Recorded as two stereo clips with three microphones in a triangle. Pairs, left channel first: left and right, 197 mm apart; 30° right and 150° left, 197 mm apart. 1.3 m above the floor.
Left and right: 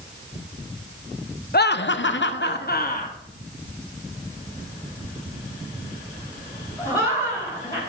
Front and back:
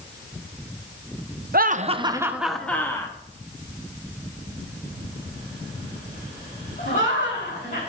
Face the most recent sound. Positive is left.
turn(degrees=15)